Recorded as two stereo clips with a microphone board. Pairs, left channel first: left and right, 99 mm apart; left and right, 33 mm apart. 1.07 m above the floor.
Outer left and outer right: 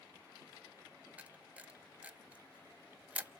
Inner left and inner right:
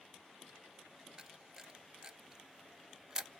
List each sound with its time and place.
1.2 s a camera shutter: 15° right (ahead or behind), 0.6 m